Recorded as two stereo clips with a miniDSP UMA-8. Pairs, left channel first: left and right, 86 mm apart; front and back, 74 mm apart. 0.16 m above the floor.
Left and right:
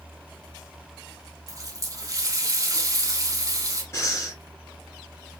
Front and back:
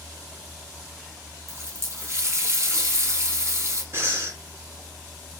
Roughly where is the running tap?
Behind right.